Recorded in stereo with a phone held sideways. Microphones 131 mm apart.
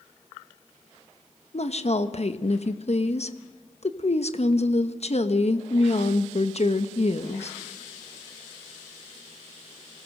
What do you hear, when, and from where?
1.5 s a woman speaking: 55° left (ahead or behind), 1.2 m